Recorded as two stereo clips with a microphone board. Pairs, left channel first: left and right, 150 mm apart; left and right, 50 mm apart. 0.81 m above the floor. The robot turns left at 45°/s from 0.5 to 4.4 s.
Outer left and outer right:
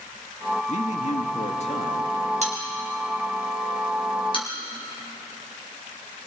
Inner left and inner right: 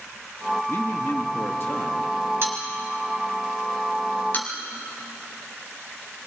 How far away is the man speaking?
About 1.6 m.